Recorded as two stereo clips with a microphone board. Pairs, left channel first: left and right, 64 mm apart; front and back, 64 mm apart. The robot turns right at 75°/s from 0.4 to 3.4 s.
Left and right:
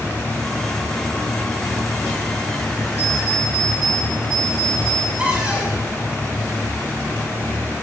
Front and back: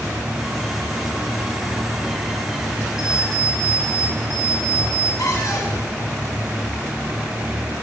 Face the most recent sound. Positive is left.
turn(degrees=-20)